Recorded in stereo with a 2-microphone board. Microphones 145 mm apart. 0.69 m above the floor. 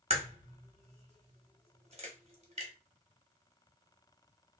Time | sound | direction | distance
0.1 | a crack | 45° right (ahead or behind) | 0.9 m